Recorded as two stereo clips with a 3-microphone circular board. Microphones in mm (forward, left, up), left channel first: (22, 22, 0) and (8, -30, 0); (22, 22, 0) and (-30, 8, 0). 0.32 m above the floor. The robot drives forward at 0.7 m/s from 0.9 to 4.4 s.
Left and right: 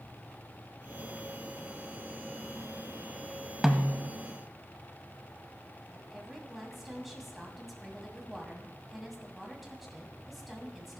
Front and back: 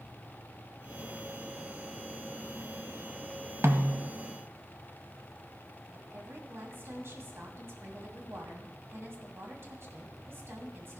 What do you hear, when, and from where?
3.6 s a snare drum: 175° left, 0.9 m
5.9 s a woman speaking: 170° left, 2 m